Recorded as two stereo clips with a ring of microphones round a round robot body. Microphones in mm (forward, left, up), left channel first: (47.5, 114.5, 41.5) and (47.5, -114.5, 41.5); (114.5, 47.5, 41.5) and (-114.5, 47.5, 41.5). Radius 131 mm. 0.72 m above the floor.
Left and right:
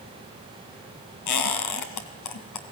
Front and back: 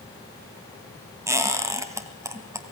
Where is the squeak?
100° left, 2.5 m.